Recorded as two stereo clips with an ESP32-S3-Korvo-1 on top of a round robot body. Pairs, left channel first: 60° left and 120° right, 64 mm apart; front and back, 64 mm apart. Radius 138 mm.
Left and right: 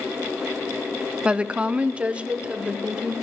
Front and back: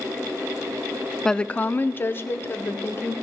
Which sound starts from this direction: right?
A woman speaking, at 1.2 s.